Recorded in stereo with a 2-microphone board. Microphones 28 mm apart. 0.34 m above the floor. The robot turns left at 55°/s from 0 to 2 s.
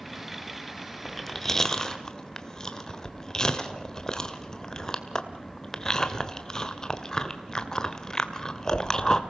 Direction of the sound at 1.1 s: 5° left (ahead or behind).